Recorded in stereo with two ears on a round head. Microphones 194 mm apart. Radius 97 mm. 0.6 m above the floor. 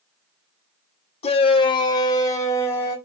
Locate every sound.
1.2 s a shout: 30° left (ahead or behind), 1.6 m; by 3.0 s 10° left (ahead or behind), 3 m